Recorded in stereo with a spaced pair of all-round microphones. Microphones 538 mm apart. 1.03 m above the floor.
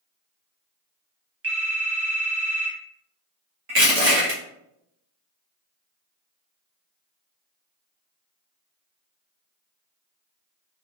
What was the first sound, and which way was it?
A phone ringing, 25° right (ahead or behind).